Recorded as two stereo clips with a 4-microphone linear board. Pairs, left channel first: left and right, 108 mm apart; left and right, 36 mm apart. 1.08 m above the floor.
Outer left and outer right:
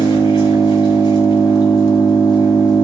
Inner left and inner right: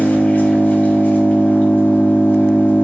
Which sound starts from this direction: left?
An engine running, at 0.0 s.